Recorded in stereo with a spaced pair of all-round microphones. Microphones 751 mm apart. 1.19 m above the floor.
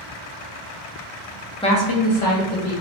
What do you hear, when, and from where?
1.6 s a woman speaking: 10° left (ahead or behind), 0.5 m; by 2.7 s 50° left (ahead or behind), 1.1 m